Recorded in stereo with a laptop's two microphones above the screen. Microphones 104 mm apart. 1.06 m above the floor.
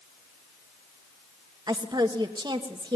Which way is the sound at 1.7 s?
40° right (ahead or behind).